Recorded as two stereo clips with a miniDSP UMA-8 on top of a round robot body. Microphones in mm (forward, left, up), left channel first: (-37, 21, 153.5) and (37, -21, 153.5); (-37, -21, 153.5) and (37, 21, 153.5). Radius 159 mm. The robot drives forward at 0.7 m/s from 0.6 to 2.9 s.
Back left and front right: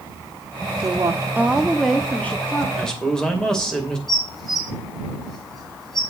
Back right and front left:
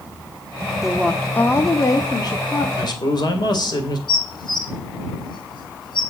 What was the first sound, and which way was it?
A woman speaking, 55° right.